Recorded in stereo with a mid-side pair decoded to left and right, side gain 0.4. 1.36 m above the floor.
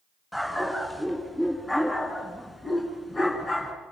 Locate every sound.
0.3 s a dog barking: 5° left, 5 m; by 3.7 s 35° left, 5.5 m